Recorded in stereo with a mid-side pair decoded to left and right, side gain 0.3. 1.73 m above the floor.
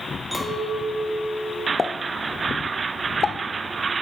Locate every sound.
0.3 s a clink: 15° right, 3 m
1.8 s a pop: 50° left, 0.6 m